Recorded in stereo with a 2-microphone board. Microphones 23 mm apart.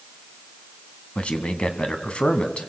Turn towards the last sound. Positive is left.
turn(degrees=50)  # may be behind; listen again after turning